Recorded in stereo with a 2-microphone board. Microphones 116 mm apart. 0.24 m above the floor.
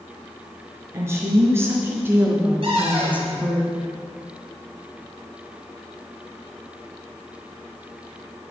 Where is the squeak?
No squeak in this recording.